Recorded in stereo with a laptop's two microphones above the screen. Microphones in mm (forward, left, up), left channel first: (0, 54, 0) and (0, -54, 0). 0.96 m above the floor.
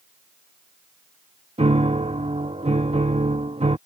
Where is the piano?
70° right (ahead or behind).